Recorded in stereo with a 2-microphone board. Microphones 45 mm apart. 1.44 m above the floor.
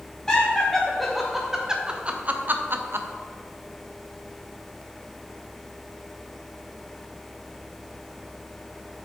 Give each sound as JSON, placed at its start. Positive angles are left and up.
{"t": 0.3, "sound": "laughter", "side_deg": 15, "distance_m": 1.2}